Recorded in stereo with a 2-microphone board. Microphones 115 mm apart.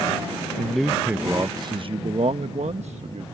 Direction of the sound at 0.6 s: 10° left (ahead or behind).